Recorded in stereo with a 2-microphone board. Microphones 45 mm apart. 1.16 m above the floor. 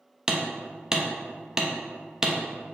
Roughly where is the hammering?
Centre.